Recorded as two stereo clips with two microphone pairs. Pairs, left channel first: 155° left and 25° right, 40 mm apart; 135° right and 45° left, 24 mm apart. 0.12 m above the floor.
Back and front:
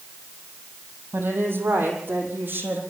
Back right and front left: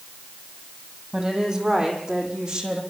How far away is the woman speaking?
About 5 m.